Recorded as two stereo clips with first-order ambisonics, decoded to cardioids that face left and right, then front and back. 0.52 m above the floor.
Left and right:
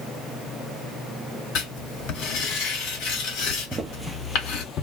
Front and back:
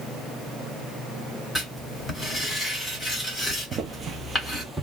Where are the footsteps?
150° right, 0.6 m; by 4.8 s 95° left, 0.6 m.